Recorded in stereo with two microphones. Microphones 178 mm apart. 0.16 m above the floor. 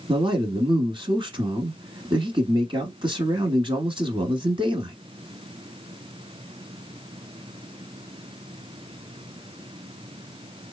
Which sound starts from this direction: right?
A man speaking, at 0.1 s.